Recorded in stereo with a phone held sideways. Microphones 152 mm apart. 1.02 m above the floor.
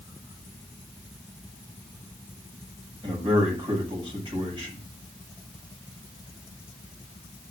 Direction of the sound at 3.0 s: 35° right (ahead or behind).